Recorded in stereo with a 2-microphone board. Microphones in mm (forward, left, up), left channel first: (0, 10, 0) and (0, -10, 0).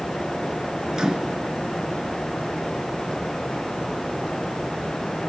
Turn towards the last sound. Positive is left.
turn(degrees=-35)  # may be behind; listen again after turning